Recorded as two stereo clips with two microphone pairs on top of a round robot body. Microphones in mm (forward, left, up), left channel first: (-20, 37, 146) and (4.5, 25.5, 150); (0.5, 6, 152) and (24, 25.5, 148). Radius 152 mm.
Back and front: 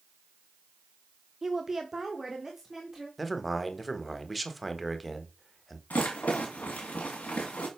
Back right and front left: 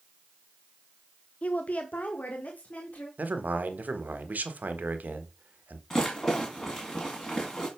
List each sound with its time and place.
1.4 s a woman speaking: 100° right, 0.7 m; by 3.1 s 105° right, 1.8 m
3.2 s a man speaking: 65° left, 1.2 m
5.9 s a rattle: 155° left, 1.7 m